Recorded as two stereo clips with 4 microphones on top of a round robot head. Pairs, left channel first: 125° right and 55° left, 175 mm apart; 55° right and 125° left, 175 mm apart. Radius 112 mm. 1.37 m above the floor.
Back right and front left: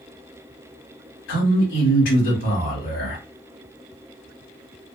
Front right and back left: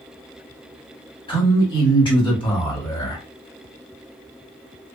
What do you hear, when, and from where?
1.3 s a man speaking: 120° right, 1.6 m